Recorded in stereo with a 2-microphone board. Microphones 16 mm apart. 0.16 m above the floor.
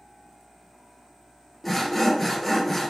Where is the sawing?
5° left (ahead or behind), 0.9 m.